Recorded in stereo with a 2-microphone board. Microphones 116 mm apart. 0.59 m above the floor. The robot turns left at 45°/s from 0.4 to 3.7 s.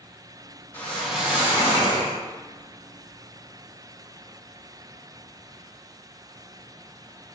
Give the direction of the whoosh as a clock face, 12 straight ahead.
11 o'clock.